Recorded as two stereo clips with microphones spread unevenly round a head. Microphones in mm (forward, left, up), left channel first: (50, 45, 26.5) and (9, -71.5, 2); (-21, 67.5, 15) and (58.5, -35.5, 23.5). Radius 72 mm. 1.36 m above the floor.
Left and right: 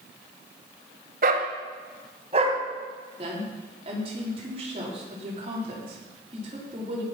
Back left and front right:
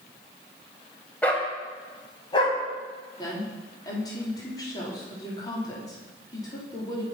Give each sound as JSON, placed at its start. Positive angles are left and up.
{"t": 1.2, "sound": "a dog barking", "azimuth_deg": -150, "distance_m": 2.0}
{"t": 3.2, "sound": "a woman speaking", "azimuth_deg": -165, "distance_m": 3.5}